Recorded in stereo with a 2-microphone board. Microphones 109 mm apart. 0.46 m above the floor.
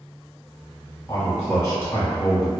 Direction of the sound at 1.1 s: 30° left (ahead or behind).